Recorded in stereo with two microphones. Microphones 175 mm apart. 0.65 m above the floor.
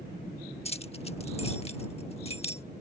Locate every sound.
0.7 s keys jangling: 35° left (ahead or behind)